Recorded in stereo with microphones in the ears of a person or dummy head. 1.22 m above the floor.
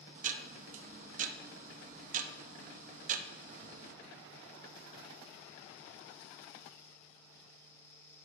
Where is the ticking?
35° right (ahead or behind), 0.6 m.